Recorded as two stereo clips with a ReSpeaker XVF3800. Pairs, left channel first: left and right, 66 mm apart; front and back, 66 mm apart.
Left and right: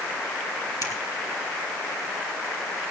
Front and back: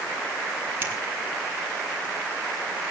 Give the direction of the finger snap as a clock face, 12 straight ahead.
8 o'clock.